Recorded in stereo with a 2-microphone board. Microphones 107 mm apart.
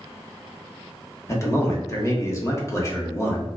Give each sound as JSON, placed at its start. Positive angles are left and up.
{"t": 1.3, "sound": "a man speaking", "side_deg": 30, "distance_m": 0.8}